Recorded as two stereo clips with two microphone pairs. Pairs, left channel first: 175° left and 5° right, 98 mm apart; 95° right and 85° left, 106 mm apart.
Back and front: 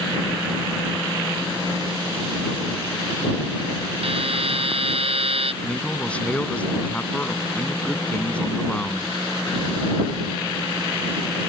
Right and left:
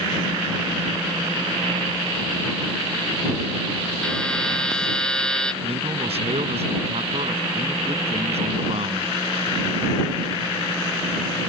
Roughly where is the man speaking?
Left.